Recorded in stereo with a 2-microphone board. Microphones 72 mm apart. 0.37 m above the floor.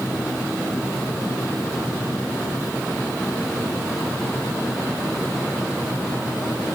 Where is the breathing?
No breathing in this recording.